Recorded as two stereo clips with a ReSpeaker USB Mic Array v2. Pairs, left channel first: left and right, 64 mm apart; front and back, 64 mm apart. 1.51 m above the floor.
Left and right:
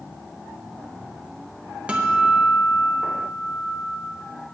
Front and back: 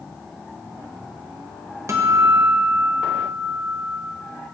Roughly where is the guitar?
Behind.